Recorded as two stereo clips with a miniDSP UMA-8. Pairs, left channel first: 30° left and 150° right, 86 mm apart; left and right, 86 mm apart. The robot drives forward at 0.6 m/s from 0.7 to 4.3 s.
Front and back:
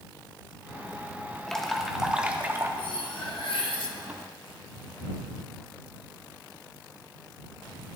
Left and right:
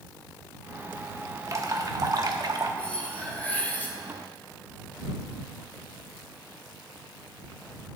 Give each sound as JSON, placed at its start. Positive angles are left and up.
{"t": 1.5, "sound": "dripping", "azimuth_deg": -50, "distance_m": 1.2}
{"t": 2.8, "sound": "cutlery clinking", "azimuth_deg": 15, "distance_m": 2.0}